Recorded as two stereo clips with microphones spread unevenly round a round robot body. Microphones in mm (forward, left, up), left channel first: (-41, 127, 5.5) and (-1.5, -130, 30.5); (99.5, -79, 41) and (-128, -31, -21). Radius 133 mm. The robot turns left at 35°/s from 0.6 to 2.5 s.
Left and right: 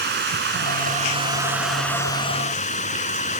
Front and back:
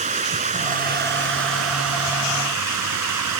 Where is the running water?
130° right; by 3.4 s 160° left.